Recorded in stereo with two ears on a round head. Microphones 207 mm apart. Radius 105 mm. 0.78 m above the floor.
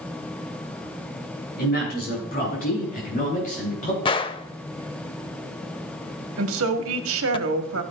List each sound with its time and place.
1.6 s a man speaking: 40° left (ahead or behind), 8 m; by 4.0 s 35° left (ahead or behind), 9.5 m
4.0 s a gunshot: 20° left (ahead or behind), 0.6 m
6.4 s a woman speaking: 65° right (ahead or behind), 1.7 m